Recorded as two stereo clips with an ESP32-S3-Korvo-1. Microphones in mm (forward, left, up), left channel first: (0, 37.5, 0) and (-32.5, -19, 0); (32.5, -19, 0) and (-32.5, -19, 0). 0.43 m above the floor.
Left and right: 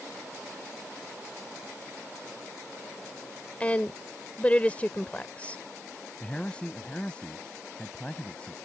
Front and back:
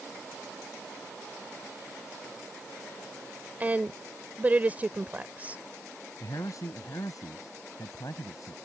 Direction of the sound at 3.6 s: 125° left.